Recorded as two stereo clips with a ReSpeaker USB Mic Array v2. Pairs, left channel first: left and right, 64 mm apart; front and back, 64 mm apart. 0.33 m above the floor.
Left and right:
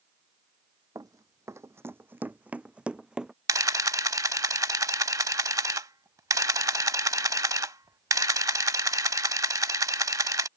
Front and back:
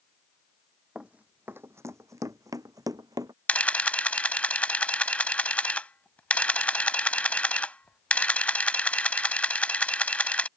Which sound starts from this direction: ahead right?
A camera shutter, at 3.5 s.